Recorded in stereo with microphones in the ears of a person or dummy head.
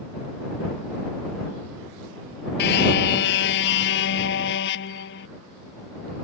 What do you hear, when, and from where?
2.6 s a car horn: 55° left (ahead or behind); by 5.3 s 60° left (ahead or behind)